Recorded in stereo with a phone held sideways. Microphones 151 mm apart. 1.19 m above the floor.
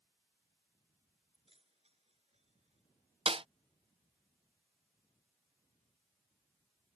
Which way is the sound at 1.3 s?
40° right (ahead or behind).